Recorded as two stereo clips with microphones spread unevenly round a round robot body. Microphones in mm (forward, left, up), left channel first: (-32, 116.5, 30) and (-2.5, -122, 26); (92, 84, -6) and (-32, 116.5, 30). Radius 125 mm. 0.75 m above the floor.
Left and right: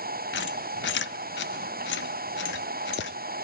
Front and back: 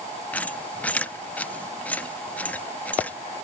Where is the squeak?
55° left, 0.5 m.